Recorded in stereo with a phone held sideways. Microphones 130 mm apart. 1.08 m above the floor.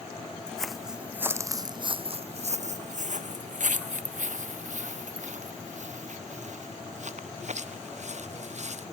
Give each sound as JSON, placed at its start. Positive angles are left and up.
{"t": 0.5, "sound": "footsteps", "side_deg": 5}